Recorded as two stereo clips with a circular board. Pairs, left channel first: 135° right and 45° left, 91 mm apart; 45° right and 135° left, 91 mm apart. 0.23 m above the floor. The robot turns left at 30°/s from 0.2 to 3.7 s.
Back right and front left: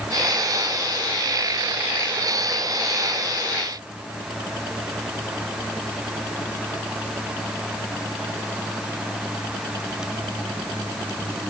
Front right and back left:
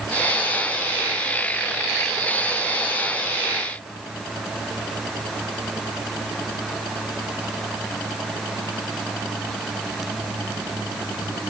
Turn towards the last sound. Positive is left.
No sound to turn to.